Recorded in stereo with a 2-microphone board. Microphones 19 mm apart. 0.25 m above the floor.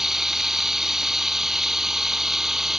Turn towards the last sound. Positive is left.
turn(degrees=-25)  # may be behind; listen again after turning